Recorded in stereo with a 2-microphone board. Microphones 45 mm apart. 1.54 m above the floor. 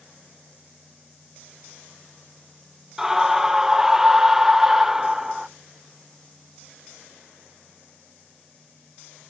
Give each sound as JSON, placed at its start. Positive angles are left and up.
{"t": 3.0, "sound": "a scream", "side_deg": -10, "distance_m": 0.7}